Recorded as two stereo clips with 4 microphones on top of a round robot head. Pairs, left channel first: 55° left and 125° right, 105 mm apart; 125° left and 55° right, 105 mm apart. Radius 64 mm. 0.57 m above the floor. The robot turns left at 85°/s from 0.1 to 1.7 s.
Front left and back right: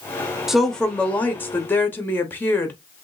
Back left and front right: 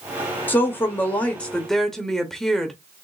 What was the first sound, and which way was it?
A woman speaking, 150° left.